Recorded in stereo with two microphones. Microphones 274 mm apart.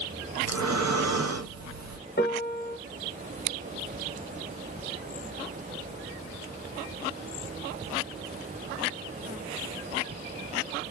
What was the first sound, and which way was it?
Breathing, 70° right (ahead or behind).